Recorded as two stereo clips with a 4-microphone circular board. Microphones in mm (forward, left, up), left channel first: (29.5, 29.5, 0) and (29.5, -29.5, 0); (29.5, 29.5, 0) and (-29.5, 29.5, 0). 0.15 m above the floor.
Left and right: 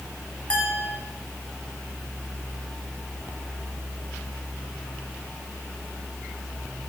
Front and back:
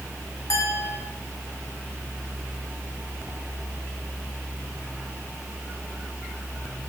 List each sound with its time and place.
0.5 s a clink: 20° left, 7 m